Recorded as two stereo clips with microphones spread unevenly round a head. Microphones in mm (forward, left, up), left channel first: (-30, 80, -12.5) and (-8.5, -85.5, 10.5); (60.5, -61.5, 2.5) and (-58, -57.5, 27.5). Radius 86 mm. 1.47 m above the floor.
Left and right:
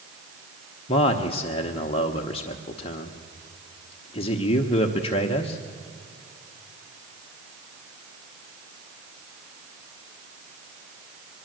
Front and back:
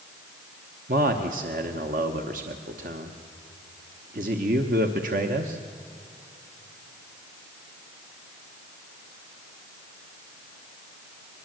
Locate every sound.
0.9 s a man speaking: 155° left, 1.1 m